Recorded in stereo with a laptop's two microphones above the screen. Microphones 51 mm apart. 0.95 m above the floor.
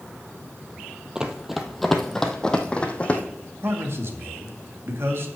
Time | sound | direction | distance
1.1 | running footsteps | 15° right (ahead or behind) | 1.3 m
3.6 | a man speaking | 55° right (ahead or behind) | 1.8 m